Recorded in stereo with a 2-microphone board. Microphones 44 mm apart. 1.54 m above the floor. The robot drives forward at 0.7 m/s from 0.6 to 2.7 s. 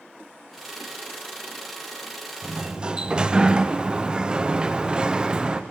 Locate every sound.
2.4 s a sliding door: 15° right (ahead or behind), 0.8 m; by 5.6 s 20° right (ahead or behind), 0.7 m